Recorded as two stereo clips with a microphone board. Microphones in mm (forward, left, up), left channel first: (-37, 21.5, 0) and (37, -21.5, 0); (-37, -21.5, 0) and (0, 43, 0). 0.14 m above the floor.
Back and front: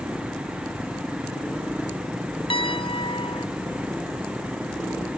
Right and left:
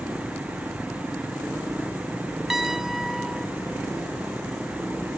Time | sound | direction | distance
2.5 | a piano | 145° left | ?